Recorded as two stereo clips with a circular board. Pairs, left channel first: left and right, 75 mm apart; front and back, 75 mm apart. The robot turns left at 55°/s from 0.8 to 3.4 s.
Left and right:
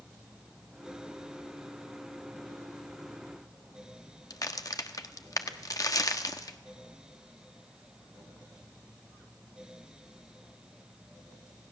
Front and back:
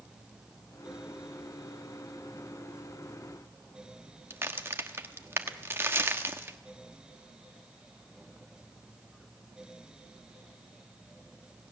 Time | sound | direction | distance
4.3 | a crack | 125° left | 1.2 m